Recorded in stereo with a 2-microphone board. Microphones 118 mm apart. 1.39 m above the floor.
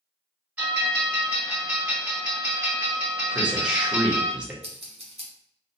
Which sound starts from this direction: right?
Scissors, at 4.6 s.